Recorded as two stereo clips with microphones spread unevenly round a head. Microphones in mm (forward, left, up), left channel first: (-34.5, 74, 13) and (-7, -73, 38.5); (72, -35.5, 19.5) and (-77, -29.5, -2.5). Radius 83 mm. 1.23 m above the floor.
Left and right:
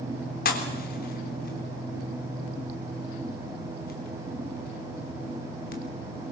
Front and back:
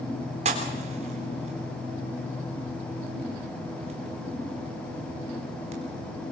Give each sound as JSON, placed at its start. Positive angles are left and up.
{"t": 0.5, "sound": "a pop", "azimuth_deg": 125, "distance_m": 3.5}